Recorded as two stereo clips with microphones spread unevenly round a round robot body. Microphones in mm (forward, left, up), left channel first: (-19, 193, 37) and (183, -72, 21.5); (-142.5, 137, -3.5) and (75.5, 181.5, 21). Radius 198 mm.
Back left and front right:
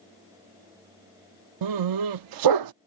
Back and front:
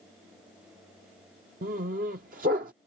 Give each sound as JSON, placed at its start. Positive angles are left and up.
{"t": 1.6, "sound": "a dog barking", "azimuth_deg": -45}